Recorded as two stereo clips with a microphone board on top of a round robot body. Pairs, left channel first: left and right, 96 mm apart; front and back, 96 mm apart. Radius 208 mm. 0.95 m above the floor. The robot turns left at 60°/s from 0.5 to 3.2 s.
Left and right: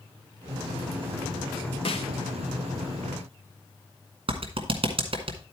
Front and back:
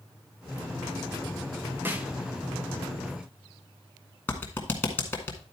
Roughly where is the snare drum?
Left.